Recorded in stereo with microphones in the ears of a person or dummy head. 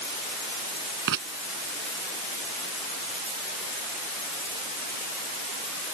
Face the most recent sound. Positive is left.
turn(degrees=-65)  # may be behind; listen again after turning